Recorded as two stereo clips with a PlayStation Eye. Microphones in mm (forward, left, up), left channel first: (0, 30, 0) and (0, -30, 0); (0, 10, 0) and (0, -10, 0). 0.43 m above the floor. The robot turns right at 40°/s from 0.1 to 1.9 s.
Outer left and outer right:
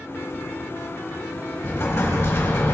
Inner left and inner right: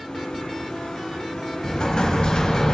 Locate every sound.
1.6 s an explosion: 45° left (ahead or behind), 3 m; by 2.8 s 55° left (ahead or behind), 3 m